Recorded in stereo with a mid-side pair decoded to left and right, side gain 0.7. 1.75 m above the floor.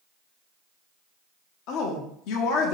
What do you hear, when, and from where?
1.7 s a woman speaking: 65° left, 0.7 m